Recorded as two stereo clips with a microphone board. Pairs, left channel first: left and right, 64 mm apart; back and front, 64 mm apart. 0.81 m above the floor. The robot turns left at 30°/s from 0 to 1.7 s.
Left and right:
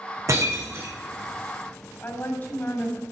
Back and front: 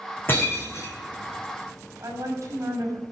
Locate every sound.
0.3 s breaking glass: 125° right, 4.5 m; by 0.9 s 145° right, 4.5 m
2.0 s a woman speaking: 35° left, 6.5 m